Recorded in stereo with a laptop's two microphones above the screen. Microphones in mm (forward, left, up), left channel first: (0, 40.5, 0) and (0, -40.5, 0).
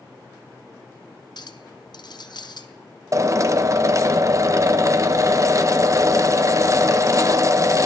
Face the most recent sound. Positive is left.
turn(degrees=-40)  # may be behind; listen again after turning